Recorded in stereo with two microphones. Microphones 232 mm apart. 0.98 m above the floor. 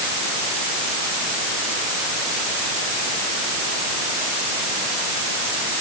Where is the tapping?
I don't hear tapping.